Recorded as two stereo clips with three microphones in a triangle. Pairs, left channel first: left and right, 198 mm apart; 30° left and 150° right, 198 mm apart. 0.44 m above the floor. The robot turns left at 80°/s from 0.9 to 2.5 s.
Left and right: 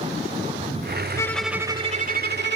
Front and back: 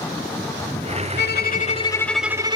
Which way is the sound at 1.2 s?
20° left.